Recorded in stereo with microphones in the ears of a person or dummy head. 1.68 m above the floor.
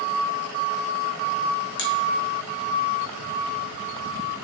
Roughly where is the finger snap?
Left.